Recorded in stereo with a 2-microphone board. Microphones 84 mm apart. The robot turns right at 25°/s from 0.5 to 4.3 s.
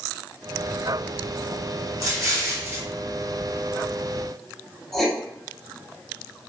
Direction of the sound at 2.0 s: 40° right (ahead or behind).